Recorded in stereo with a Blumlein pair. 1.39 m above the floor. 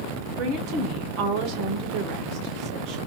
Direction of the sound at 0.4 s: 40° right.